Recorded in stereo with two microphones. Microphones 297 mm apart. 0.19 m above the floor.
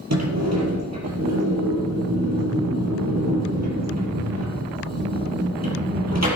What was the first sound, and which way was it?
A sliding door, 60° right (ahead or behind).